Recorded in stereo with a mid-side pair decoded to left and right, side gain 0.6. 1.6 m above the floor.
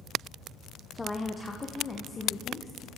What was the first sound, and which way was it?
A woman speaking, 15° left.